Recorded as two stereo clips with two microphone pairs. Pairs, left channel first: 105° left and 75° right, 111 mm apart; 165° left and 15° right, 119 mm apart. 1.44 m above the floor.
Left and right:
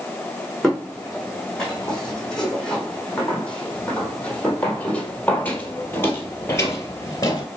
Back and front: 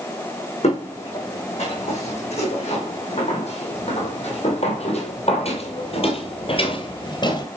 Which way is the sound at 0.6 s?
165° right.